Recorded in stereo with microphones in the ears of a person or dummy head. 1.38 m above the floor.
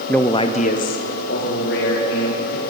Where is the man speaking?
5° right (ahead or behind), 0.5 m; by 2.6 s 60° left (ahead or behind), 2.5 m.